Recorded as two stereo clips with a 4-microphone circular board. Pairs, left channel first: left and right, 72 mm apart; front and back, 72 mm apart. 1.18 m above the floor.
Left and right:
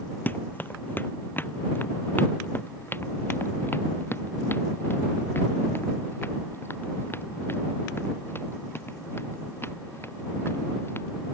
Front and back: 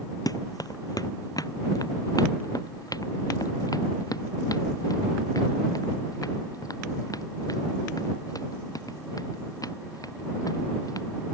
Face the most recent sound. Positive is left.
turn(degrees=35)